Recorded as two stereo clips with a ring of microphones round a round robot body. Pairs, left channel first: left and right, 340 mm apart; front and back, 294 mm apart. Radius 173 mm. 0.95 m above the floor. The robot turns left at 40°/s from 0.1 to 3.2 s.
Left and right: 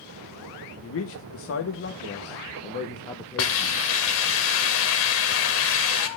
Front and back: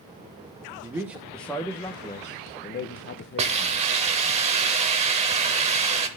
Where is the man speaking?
110° left, 0.8 m; by 3.8 s 15° left, 0.8 m.